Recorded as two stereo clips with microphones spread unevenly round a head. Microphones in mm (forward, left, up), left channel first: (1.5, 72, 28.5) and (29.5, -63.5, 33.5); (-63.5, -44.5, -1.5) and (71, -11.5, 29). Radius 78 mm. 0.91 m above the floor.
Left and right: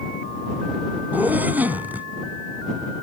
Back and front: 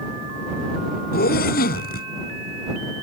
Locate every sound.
1.1 s a zipper: 160° right